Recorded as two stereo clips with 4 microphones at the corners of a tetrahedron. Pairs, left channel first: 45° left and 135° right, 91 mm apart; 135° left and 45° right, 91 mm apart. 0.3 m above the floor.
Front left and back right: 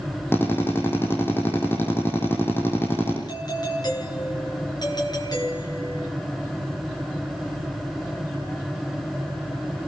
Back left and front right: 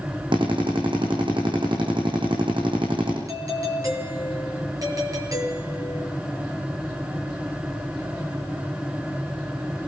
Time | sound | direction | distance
0.3 | a drill | 20° right | 7 m
3.3 | a doorbell | 5° left | 7.5 m